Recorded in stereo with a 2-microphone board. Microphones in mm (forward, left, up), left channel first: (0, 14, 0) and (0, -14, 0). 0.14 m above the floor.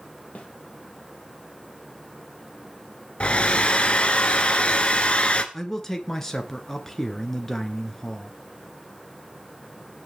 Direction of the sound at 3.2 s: 40° left (ahead or behind).